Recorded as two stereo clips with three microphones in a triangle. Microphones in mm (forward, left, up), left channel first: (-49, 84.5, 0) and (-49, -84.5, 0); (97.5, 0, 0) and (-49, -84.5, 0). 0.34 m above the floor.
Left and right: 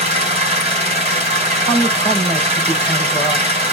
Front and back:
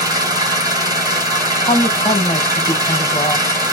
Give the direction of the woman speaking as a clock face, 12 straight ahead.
12 o'clock.